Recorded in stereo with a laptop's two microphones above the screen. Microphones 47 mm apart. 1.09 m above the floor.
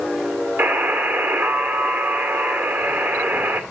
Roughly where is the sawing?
I don't hear sawing.